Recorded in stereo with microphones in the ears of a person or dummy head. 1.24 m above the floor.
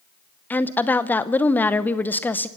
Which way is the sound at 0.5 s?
15° left (ahead or behind).